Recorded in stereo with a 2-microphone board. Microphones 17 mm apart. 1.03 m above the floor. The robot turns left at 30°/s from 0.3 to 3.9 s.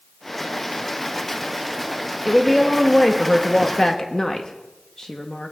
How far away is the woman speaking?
About 0.9 m.